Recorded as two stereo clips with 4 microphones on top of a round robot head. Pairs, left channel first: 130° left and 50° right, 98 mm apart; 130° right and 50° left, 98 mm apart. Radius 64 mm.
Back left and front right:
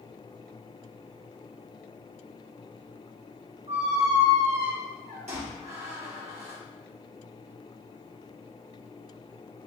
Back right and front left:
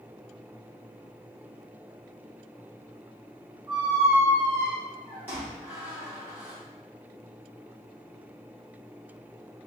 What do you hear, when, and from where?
3.7 s a squeak: 25° right, 1.4 m